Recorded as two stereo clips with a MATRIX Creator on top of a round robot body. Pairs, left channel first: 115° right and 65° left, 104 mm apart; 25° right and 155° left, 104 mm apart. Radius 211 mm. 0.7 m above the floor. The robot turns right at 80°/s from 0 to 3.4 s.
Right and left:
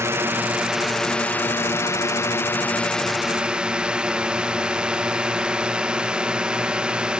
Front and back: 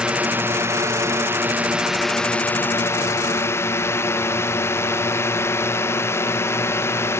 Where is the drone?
85° left; by 7.2 s 5° right.